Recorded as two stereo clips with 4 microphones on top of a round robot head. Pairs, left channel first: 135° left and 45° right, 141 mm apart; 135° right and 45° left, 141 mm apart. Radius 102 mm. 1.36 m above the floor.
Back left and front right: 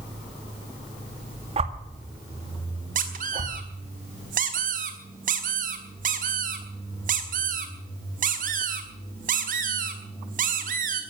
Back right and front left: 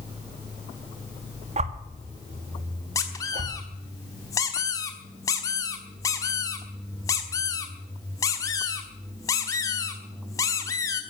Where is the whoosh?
Straight ahead, 1.7 m.